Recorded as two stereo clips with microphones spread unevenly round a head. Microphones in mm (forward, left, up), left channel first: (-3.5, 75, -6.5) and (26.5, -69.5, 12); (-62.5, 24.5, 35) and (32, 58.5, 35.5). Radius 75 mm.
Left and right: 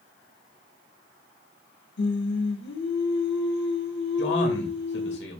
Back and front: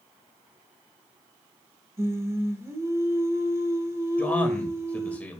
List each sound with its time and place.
2.0 s singing: 85° left, 1.7 m
4.2 s a man speaking: 125° left, 2 m